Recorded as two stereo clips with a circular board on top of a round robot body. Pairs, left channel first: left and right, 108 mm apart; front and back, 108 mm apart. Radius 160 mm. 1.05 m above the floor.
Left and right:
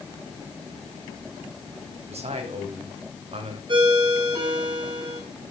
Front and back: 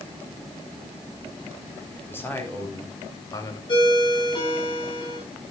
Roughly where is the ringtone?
Ahead right.